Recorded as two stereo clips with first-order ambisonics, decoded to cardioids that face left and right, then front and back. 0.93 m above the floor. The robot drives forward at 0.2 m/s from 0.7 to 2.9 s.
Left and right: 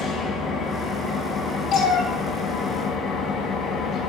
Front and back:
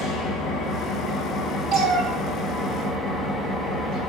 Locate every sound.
0.0 s an engine running: 35° left, 0.8 m; by 4.1 s 90° left, 0.6 m
1.7 s a cat meowing: 130° left, 1.2 m; by 4.1 s 140° left, 1.3 m